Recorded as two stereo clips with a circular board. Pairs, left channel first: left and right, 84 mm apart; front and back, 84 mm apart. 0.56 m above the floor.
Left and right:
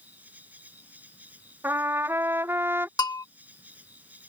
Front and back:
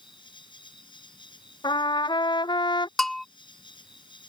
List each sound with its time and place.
0.0 s an insect: 20° right
1.6 s a trumpet: 30° right
3.0 s a bell: 85° left